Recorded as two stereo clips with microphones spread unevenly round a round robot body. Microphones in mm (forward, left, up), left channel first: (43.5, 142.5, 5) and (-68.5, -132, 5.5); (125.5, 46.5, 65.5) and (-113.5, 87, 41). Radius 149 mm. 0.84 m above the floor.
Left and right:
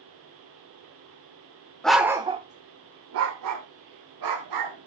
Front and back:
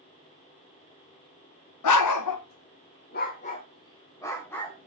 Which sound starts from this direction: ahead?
A dog barking, at 1.8 s.